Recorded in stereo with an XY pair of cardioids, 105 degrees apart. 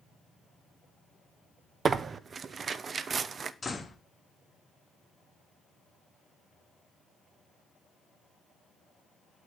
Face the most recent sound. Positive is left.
turn(degrees=25)